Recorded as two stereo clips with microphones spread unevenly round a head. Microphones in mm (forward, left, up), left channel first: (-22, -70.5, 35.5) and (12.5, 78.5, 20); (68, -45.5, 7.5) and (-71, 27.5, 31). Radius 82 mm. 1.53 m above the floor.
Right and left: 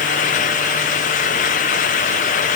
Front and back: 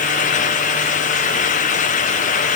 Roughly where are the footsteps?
No footsteps in this recording.